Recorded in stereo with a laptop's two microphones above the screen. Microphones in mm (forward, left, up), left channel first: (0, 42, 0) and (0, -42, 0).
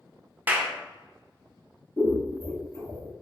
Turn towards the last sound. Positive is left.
turn(degrees=40)  # may be behind; listen again after turning